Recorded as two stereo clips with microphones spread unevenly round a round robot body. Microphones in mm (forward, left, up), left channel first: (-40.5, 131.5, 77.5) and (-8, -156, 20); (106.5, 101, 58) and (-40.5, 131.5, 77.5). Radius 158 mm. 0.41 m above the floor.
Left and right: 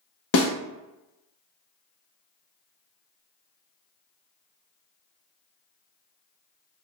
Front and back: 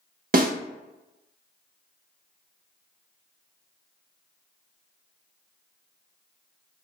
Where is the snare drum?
140° left, 0.8 m.